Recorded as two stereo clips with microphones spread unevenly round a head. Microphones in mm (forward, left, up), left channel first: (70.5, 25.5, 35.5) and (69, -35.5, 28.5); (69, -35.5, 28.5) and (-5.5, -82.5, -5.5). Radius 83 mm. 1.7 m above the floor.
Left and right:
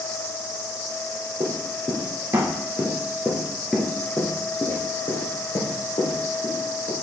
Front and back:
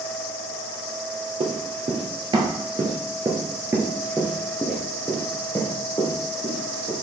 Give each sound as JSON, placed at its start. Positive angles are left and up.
{"t": 1.4, "sound": "running footsteps", "azimuth_deg": -115, "distance_m": 2.5}